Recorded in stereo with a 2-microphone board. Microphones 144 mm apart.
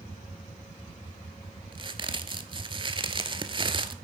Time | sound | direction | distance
1.7 | a crack | 35° right (ahead or behind) | 0.5 m